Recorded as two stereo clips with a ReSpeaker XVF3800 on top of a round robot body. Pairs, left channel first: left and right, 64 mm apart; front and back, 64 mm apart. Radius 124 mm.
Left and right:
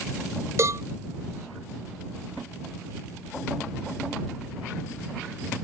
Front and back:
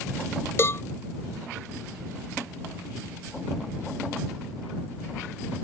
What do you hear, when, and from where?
0.6 s a cowbell: 50° right